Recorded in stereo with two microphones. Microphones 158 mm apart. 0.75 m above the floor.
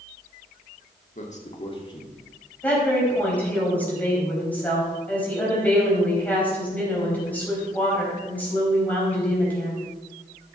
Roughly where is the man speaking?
Left.